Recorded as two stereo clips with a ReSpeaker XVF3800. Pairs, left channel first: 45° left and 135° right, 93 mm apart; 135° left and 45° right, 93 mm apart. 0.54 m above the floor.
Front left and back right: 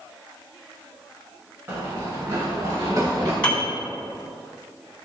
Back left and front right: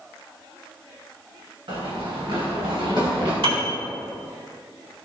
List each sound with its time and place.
1.7 s running footsteps: 65° right, 5.5 m; by 3.3 s 80° right, 6.5 m
3.4 s a piano: 30° right, 4 m